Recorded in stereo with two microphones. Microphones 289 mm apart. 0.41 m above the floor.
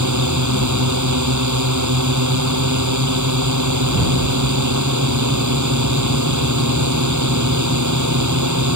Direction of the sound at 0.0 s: 85° right.